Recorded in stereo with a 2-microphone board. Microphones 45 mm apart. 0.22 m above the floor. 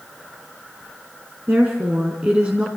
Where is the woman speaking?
45° right (ahead or behind), 2.5 m; by 2.7 s 25° right (ahead or behind), 2.5 m.